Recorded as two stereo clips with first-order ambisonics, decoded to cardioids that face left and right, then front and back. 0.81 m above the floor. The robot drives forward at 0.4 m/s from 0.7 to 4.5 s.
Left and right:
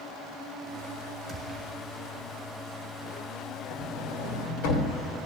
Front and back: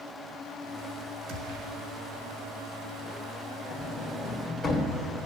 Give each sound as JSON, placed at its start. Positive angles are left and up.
{"t": 1.3, "sound": "a gunshot", "azimuth_deg": -165, "distance_m": 1.2}
{"t": 3.7, "sound": "a sliding door", "azimuth_deg": 75, "distance_m": 1.4}